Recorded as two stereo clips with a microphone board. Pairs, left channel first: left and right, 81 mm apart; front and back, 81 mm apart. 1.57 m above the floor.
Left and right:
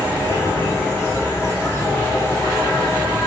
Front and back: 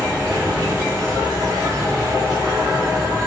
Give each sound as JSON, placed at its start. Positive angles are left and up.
{"t": 0.0, "sound": "an insect", "azimuth_deg": 145, "distance_m": 2.0}